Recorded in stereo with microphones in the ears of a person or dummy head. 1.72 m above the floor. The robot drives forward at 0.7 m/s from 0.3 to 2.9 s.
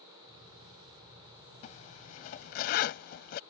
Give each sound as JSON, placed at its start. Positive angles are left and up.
{"t": 1.6, "sound": "a zipper", "side_deg": 45}